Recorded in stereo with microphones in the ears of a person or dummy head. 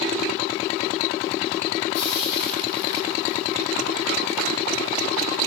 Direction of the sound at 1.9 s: 60° left (ahead or behind).